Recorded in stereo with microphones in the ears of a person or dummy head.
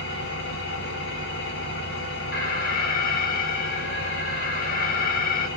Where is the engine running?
65° left (ahead or behind), 2 m.